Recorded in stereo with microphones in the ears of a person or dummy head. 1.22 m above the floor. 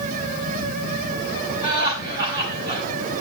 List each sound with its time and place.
1.6 s laughter: 25° right (ahead or behind), 7.5 m